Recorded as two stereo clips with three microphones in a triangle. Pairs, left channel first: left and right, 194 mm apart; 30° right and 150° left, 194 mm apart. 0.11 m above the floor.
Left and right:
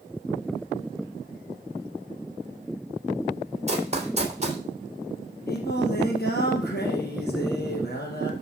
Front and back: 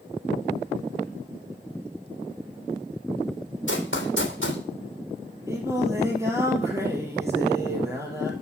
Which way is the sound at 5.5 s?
75° left.